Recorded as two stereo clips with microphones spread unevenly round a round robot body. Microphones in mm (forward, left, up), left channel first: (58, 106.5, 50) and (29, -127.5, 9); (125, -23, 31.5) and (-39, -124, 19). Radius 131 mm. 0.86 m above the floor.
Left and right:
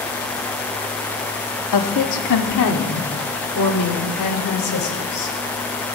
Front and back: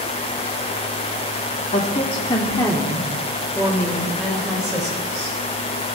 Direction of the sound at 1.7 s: 95° left.